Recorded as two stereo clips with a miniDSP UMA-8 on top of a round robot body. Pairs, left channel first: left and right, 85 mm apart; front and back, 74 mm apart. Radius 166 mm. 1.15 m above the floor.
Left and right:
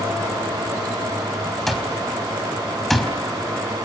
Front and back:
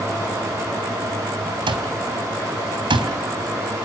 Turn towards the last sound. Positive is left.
turn(degrees=180)